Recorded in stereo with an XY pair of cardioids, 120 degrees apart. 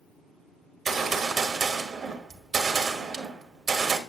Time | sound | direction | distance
0.8 | a gunshot | 35° right | 1.3 m